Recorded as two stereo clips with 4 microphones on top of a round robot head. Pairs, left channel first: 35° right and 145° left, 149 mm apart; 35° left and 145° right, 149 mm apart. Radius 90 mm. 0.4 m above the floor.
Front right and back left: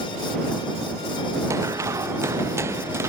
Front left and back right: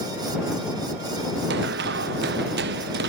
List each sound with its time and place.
1.5 s running footsteps: 140° right